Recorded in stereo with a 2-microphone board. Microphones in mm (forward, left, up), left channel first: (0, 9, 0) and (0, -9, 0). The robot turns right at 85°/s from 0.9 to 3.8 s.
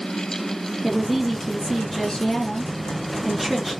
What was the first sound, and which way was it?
A woman speaking, 5° left.